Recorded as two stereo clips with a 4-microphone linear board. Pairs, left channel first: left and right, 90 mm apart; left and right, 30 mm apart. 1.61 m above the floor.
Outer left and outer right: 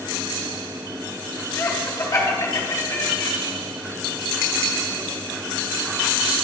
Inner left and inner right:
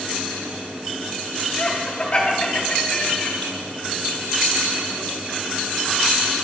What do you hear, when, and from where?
1.6 s laughter: 30° left (ahead or behind), 1.9 m; by 3.3 s 55° left (ahead or behind), 1.3 m